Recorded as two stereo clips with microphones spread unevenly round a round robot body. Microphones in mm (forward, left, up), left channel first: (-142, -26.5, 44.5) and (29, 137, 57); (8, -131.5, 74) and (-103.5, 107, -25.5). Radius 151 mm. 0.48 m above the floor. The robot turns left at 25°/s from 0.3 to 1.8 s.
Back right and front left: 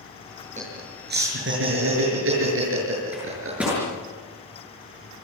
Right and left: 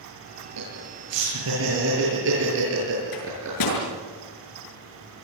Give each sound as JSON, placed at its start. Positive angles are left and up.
{"t": 0.6, "sound": "laughter", "azimuth_deg": 100, "distance_m": 7.0}
{"t": 3.1, "sound": "a microwave", "azimuth_deg": -40, "distance_m": 7.5}